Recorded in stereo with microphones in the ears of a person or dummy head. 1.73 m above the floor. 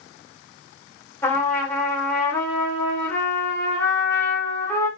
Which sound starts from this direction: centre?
A trumpet, at 1.2 s.